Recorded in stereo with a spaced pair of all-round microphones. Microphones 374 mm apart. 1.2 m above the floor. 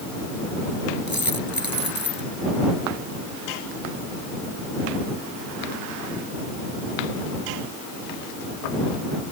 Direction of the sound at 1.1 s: 80° left.